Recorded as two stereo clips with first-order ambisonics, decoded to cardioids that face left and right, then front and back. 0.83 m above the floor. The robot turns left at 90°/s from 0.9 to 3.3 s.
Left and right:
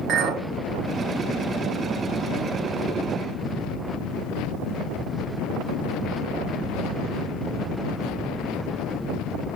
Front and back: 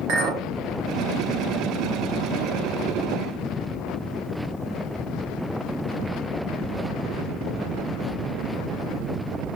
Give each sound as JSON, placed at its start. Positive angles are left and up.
{"t": 0.1, "sound": "a clink", "azimuth_deg": -145, "distance_m": 1.1}